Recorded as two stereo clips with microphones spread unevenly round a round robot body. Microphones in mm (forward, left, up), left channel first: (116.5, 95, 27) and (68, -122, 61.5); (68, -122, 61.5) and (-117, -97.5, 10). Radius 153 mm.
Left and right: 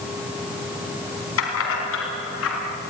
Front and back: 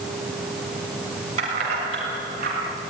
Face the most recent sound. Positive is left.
turn(degrees=115)